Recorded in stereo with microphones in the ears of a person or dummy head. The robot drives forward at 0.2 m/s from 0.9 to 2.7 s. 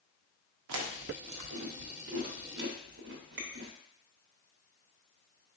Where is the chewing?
70° right (ahead or behind), 0.6 m; by 3.7 s 55° right (ahead or behind), 0.7 m.